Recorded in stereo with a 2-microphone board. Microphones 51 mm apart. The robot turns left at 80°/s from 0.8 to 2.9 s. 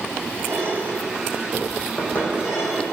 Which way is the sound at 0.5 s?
60° right (ahead or behind).